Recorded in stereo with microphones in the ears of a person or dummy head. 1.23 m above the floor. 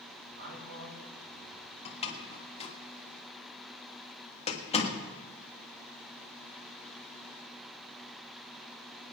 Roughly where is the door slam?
Left.